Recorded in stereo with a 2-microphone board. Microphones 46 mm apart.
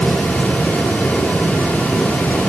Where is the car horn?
No car horn in this recording.